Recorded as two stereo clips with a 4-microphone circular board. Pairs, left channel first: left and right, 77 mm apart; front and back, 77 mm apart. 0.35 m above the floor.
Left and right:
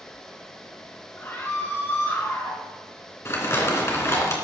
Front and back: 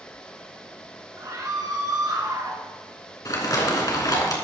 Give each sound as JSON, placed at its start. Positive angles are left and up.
{"t": 1.2, "sound": "a scream", "azimuth_deg": 145, "distance_m": 4.5}
{"t": 3.2, "sound": "crumpling", "azimuth_deg": 35, "distance_m": 3.0}